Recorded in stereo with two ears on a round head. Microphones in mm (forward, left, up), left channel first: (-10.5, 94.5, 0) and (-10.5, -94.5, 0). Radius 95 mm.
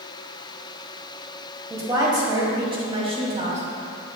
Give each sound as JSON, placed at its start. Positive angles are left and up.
{"t": 1.7, "sound": "a woman speaking", "side_deg": -15, "distance_m": 2.5}